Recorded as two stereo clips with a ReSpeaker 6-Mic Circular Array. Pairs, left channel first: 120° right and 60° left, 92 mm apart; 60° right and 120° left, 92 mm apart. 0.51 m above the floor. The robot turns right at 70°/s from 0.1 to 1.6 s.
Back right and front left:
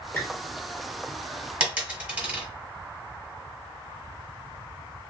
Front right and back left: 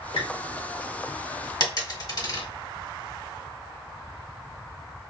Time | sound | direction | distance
0.1 | a squeak | 55° right | 1.0 m
1.6 | a dropped coin | 15° right | 1.7 m